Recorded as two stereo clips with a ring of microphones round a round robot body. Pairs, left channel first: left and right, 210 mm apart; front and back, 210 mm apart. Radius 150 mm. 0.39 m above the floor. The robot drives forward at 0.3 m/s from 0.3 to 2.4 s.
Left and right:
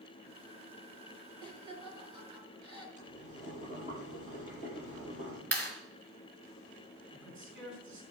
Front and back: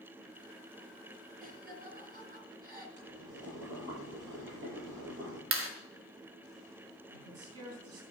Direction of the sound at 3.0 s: 150° left.